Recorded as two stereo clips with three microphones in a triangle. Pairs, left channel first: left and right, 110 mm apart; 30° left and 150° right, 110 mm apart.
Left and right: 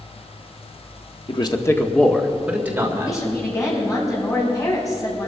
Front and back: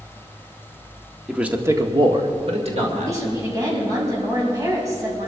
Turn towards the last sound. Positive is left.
turn(degrees=150)